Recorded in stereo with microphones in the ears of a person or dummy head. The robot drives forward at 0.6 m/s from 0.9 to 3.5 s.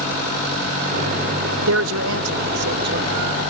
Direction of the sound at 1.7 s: 75° right (ahead or behind).